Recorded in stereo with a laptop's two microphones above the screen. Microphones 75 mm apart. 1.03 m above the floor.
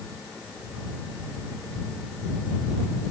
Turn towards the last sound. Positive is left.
No sound to turn to.